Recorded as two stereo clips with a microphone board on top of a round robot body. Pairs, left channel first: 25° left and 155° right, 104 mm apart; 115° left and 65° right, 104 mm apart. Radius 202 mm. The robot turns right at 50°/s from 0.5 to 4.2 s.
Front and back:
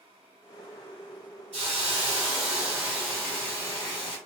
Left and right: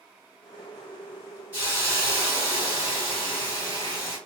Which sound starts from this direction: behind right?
A hiss, at 1.5 s.